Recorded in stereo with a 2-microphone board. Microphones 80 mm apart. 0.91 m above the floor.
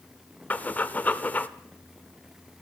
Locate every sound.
0.5 s breathing: 20° left (ahead or behind), 0.8 m